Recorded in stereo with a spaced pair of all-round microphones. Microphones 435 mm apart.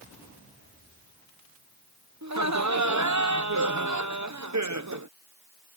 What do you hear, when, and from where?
2.2 s laughter: 40° right (ahead or behind)